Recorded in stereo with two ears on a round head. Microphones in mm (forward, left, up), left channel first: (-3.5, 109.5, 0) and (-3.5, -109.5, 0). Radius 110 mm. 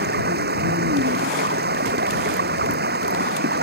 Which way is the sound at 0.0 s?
40° right (ahead or behind).